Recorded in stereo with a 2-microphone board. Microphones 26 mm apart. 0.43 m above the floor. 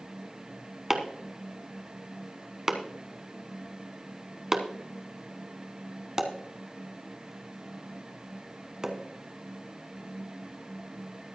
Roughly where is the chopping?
Centre.